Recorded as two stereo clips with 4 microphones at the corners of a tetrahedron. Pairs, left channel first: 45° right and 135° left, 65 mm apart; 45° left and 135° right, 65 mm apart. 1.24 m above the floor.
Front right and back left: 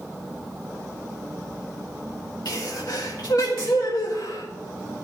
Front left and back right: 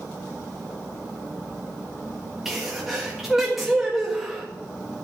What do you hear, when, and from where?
2.5 s a sneeze: 45° right, 1.8 m